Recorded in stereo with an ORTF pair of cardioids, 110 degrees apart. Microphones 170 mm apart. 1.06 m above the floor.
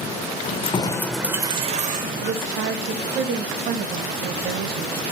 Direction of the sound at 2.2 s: 60° right.